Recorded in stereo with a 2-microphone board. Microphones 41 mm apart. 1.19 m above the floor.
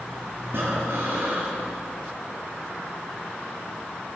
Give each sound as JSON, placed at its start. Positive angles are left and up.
{"t": 0.5, "sound": "breathing", "side_deg": -60, "distance_m": 9.0}